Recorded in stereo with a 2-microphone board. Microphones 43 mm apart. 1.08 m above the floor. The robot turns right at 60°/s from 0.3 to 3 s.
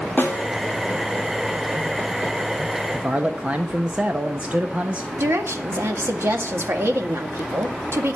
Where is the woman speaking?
80° right, 1.9 m.